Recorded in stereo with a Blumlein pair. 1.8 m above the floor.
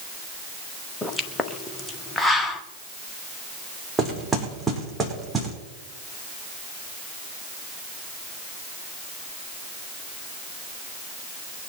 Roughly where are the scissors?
I don't hear scissors.